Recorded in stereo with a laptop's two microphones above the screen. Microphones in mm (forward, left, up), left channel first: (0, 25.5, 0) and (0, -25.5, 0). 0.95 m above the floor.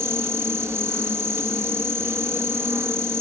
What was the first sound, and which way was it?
An insect, 60° right (ahead or behind).